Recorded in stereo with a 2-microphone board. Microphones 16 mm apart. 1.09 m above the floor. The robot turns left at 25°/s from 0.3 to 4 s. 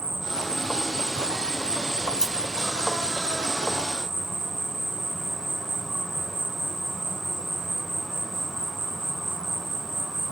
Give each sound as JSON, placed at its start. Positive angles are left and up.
{"t": 0.0, "sound": "an insect", "azimuth_deg": -55, "distance_m": 1.8}
{"t": 2.0, "sound": "scissors", "side_deg": -40, "distance_m": 1.2}